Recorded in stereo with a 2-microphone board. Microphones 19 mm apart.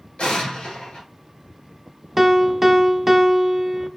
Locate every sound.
0.2 s an explosion: 75° left (ahead or behind), 2.5 m
2.2 s a piano: 10° right (ahead or behind), 0.5 m